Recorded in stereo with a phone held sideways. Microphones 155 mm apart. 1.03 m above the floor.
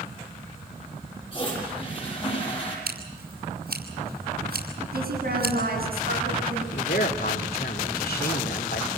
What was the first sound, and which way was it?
A toilet flushing, 35° left (ahead or behind).